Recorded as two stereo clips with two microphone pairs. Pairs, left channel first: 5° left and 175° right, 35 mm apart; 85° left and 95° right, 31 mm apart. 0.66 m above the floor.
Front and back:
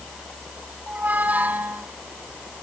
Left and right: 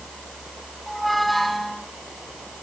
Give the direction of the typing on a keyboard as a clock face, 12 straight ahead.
I don't hear typing on a keyboard.